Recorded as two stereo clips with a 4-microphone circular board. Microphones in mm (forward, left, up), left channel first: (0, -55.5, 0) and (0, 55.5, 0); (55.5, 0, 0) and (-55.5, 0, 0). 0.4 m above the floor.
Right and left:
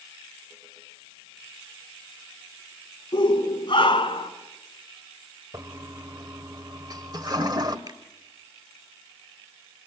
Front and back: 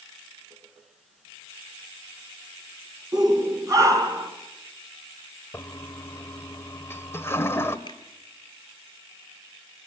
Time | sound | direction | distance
3.1 | a shout | 130° right | 4.5 m
5.5 | a toilet flushing | 60° left | 1.5 m
7.9 | a finger snap | 45° left | 3.5 m